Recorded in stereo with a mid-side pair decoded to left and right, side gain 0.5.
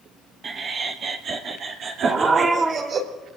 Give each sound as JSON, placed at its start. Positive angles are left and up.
{"t": 0.4, "sound": "laughter", "azimuth_deg": -45, "distance_m": 1.4}
{"t": 2.0, "sound": "a dog barking", "azimuth_deg": -40, "distance_m": 4.0}